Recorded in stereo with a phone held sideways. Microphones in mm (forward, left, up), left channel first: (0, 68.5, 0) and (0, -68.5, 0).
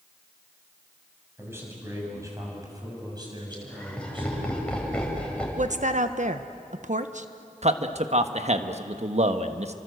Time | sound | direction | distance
1.4 | a man speaking | 15° right (ahead or behind) | 7.5 m
3.5 | laughter | 5° left (ahead or behind) | 7 m
5.6 | a woman speaking | 60° right (ahead or behind) | 1.2 m
7.6 | a man speaking | 55° right (ahead or behind) | 1.4 m